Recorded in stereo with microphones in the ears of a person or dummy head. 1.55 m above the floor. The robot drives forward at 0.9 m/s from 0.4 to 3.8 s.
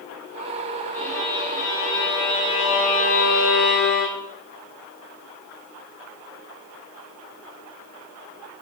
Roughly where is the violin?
Centre.